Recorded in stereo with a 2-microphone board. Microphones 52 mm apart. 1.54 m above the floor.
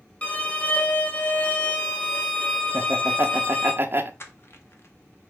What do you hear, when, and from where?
0.2 s a violin: 30° left (ahead or behind), 1.0 m
2.7 s laughter: 45° right (ahead or behind), 0.6 m
4.2 s crushing: 50° left (ahead or behind), 0.8 m